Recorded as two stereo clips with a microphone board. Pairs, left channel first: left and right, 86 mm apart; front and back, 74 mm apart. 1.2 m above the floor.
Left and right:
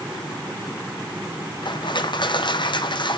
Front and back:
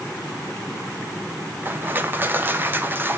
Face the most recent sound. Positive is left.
turn(degrees=120)